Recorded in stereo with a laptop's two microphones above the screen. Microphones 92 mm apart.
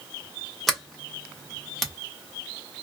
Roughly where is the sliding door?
Centre.